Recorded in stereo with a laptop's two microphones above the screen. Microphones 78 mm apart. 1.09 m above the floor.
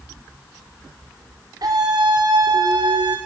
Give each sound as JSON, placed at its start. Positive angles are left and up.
{"t": 1.6, "sound": "a scream", "side_deg": -55, "distance_m": 3.0}